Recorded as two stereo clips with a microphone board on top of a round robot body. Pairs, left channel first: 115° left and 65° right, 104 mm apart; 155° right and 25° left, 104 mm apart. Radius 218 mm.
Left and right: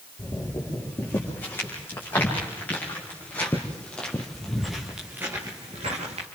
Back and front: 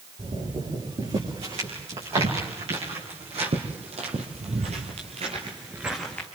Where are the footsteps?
45° left, 8.5 m; by 6.3 s 90° right, 1.5 m.